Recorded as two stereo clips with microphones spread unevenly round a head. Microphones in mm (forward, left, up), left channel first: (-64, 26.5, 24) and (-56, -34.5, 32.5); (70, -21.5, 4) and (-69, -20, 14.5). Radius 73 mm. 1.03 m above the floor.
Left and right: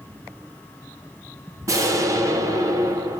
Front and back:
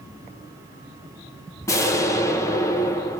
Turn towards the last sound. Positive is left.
turn(degrees=-60)